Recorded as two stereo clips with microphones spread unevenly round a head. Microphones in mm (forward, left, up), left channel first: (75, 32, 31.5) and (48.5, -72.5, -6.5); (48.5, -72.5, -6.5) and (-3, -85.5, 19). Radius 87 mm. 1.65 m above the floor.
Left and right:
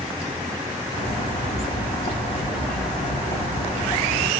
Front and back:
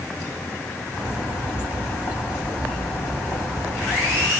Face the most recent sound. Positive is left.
turn(degrees=90)